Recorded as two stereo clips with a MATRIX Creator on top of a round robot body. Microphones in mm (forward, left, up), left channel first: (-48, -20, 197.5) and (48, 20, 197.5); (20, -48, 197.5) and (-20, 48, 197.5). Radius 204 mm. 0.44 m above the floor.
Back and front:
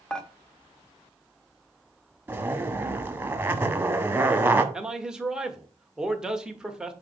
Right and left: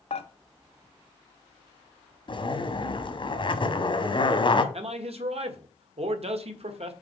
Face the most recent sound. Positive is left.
turn(degrees=105)